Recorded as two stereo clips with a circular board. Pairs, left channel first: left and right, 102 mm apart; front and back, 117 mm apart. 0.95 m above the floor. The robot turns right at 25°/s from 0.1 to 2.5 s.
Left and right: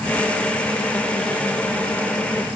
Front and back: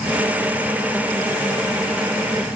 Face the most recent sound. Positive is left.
No sound to turn to.